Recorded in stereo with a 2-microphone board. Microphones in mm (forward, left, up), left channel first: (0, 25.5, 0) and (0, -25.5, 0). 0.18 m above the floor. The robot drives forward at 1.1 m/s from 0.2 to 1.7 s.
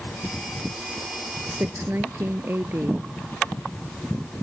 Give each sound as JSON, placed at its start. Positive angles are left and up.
{"t": 1.5, "sound": "a woman speaking", "side_deg": -50}